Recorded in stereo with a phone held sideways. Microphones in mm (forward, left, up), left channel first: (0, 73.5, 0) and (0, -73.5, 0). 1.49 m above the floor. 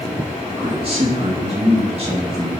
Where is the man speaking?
45° right (ahead or behind), 3.5 m.